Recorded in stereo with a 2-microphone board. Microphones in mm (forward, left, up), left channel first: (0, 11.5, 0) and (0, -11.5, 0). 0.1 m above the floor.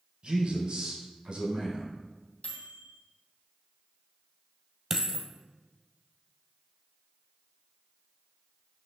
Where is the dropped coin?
15° right (ahead or behind), 1.4 m.